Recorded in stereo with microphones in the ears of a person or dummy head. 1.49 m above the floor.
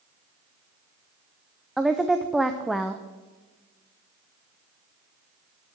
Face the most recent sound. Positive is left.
turn(degrees=0)  # may be behind; listen again after turning